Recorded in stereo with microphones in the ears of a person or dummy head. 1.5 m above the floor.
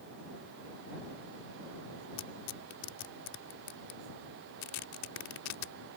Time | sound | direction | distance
2.2 | tearing paper | 85° left | ?